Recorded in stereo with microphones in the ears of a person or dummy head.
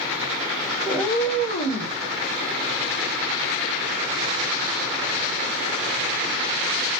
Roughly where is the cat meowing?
Centre.